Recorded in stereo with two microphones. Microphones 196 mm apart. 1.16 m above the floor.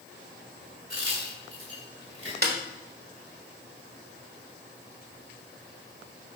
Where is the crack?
85° right, 3 m.